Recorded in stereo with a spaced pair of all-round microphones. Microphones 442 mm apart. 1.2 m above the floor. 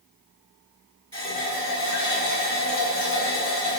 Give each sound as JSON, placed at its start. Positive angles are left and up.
{"t": 1.1, "sound": "a running tap", "side_deg": -40, "distance_m": 1.5}